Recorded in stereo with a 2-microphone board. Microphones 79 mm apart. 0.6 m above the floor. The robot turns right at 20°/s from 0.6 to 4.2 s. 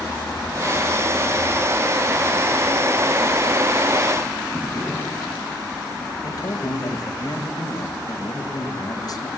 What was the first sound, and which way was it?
A drawer, 20° left (ahead or behind).